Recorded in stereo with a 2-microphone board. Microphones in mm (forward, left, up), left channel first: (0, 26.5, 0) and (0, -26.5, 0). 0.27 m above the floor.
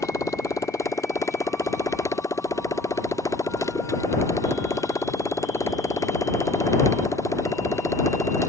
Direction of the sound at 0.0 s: 90° left.